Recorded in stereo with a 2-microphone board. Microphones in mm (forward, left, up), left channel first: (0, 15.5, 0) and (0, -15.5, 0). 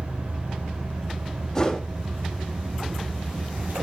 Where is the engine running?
75° right (ahead or behind), 4.5 m.